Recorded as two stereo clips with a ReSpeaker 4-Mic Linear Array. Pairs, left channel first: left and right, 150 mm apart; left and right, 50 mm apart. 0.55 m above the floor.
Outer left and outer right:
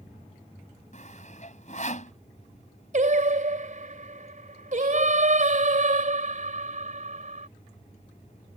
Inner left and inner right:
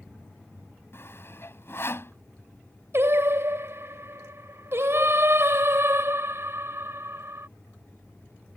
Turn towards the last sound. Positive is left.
turn(degrees=-60)  # may be behind; listen again after turning